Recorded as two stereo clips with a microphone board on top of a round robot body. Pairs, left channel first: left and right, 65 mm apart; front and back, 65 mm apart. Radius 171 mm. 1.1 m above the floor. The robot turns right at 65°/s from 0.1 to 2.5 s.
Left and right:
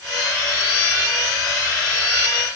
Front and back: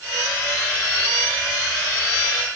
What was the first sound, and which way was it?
Only background noise.